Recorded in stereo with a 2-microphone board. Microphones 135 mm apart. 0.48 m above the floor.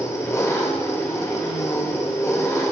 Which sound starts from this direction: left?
An engine running, at 0.0 s.